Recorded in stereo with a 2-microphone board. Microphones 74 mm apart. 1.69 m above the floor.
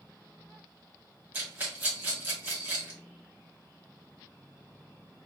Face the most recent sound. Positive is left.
turn(degrees=-20)  # may be behind; listen again after turning